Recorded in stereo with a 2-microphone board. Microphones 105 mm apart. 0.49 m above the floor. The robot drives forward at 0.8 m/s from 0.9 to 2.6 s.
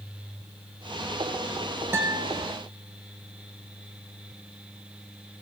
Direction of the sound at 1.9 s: 25° right (ahead or behind).